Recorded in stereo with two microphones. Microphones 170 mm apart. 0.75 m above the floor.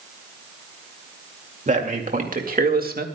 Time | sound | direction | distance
1.7 | a man speaking | 50° right (ahead or behind) | 2.5 m